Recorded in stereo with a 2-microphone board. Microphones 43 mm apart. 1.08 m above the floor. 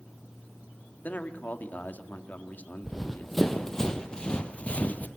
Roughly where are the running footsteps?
Centre.